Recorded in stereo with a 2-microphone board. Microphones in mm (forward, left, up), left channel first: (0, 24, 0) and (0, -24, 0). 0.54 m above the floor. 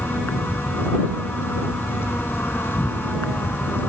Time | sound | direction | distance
0.0 | an insect | 50° left (ahead or behind) | ?